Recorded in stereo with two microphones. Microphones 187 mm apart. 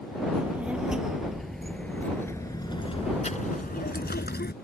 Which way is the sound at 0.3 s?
10° right (ahead or behind).